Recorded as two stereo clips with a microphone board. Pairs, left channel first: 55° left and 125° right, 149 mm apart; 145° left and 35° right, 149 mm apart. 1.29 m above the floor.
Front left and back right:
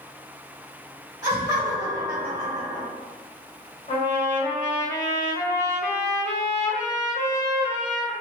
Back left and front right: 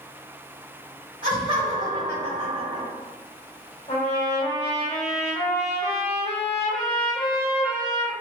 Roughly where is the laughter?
Ahead right.